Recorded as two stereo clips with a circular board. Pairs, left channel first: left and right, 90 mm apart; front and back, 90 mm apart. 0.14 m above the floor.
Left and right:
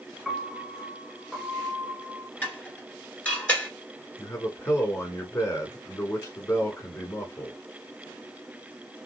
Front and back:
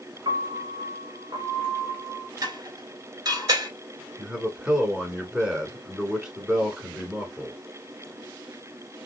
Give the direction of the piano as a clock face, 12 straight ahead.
6 o'clock.